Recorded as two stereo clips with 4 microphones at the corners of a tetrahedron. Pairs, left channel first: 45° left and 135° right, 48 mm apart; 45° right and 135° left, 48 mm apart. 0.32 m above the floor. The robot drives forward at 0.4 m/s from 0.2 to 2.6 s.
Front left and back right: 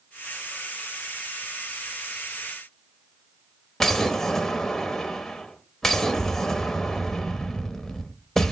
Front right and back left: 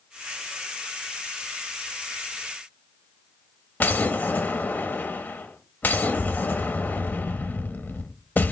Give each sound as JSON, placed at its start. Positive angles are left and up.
{"t": 3.8, "sound": "an explosion", "azimuth_deg": -30, "distance_m": 0.7}